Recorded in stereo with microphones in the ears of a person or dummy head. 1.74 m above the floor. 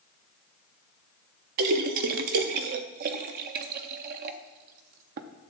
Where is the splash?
50° right (ahead or behind), 0.6 m.